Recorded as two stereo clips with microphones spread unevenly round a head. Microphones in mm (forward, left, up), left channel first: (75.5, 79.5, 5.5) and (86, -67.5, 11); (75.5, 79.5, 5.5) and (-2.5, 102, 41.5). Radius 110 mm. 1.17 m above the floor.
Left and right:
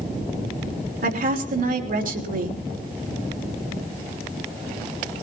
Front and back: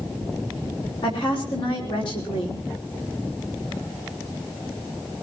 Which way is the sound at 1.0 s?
60° right.